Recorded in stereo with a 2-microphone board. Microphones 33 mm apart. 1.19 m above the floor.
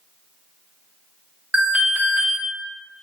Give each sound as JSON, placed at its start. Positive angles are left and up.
{"t": 1.5, "sound": "an alarm", "side_deg": -45, "distance_m": 0.7}